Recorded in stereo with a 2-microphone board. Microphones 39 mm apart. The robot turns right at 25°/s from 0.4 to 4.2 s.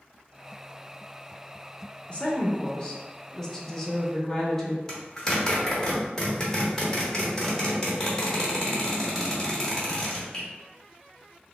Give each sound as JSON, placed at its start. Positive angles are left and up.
{"t": 2.1, "sound": "a woman speaking", "azimuth_deg": 120, "distance_m": 0.9}
{"t": 4.9, "sound": "a zipper", "side_deg": 15, "distance_m": 1.1}